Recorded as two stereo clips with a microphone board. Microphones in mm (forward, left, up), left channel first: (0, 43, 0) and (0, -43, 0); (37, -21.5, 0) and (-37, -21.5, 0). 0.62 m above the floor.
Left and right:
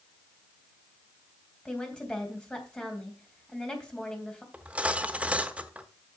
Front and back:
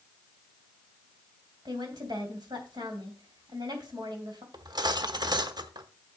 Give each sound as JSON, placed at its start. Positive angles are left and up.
{"t": 1.6, "sound": "a woman speaking", "azimuth_deg": 170, "distance_m": 3.0}
{"t": 4.5, "sound": "cutlery clinking", "azimuth_deg": -165, "distance_m": 0.9}